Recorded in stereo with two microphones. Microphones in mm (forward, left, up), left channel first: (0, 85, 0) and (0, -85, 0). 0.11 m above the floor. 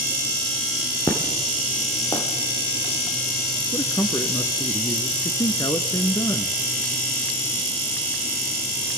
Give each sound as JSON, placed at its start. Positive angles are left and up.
{"t": 1.1, "sound": "an explosion", "side_deg": 25, "distance_m": 4.0}
{"t": 3.7, "sound": "a man speaking", "side_deg": 20, "distance_m": 1.1}